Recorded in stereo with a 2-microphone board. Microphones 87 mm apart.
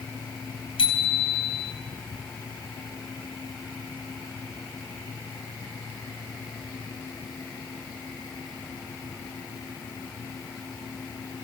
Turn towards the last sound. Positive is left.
turn(degrees=80)